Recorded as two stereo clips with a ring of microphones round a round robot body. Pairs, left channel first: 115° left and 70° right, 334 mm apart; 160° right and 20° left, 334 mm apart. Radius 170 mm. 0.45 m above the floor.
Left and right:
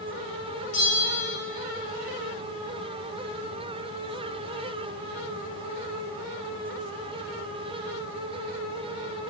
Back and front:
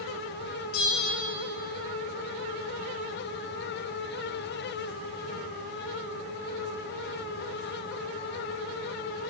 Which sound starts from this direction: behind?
A bell, at 0.7 s.